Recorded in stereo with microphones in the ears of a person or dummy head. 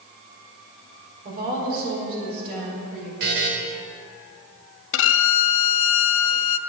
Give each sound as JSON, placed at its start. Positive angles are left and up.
{"t": 1.2, "sound": "a woman speaking", "side_deg": -50, "distance_m": 4.5}
{"t": 3.2, "sound": "a buzzer", "side_deg": -50, "distance_m": 1.7}
{"t": 4.9, "sound": "a violin", "side_deg": 75, "distance_m": 0.6}